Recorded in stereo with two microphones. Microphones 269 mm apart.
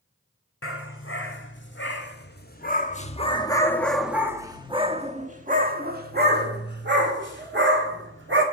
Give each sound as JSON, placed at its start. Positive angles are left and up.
{"t": 0.6, "sound": "a dog barking", "side_deg": 50, "distance_m": 2.0}